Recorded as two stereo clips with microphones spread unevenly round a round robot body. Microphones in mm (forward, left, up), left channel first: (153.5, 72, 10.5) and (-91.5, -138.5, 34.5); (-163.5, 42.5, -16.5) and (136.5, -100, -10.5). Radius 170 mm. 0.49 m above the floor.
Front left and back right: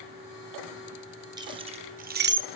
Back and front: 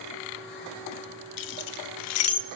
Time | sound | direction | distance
1.4 | keys jangling | 140° left | 1.2 m